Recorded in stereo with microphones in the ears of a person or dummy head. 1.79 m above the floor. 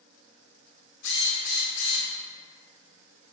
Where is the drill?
65° left (ahead or behind), 0.7 m.